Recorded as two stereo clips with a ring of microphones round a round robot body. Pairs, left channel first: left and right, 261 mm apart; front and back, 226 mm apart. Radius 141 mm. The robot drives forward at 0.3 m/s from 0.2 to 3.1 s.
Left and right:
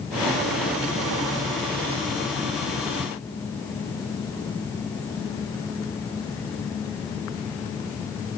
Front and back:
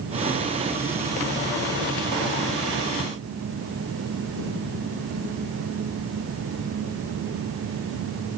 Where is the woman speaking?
I don't hear a woman speaking.